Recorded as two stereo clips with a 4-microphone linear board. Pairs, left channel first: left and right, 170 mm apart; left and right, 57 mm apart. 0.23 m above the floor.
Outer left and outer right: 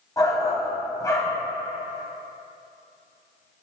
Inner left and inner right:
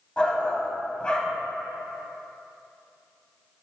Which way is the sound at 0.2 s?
20° left (ahead or behind).